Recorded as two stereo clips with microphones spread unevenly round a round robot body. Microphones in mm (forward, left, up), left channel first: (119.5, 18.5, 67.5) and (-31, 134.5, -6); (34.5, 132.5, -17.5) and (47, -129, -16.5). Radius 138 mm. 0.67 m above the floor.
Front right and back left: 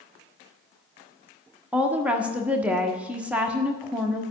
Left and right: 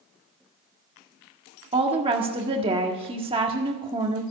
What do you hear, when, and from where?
1.7 s a woman speaking: 155° right, 1.4 m